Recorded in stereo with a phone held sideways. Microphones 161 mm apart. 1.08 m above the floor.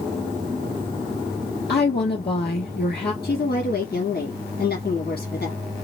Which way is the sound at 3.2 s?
70° left (ahead or behind).